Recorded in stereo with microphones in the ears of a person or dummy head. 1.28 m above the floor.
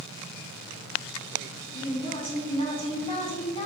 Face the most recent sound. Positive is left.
turn(degrees=25)  # may be behind; listen again after turning